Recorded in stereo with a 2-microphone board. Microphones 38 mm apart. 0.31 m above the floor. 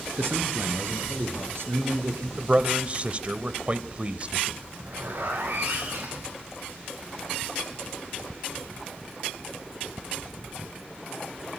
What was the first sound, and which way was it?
A man speaking, 70° right (ahead or behind).